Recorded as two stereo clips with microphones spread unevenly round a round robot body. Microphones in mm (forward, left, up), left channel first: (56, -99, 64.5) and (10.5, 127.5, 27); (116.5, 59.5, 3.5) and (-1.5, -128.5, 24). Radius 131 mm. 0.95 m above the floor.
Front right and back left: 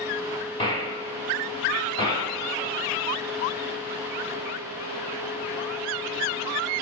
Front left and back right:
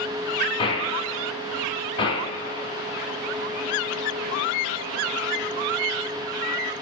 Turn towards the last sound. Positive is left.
turn(degrees=-10)